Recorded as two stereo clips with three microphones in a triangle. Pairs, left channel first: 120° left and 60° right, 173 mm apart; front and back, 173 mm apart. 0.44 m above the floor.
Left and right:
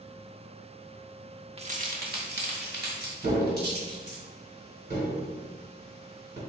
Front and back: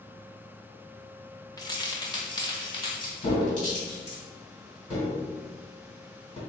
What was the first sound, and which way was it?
Keys jangling, 50° right.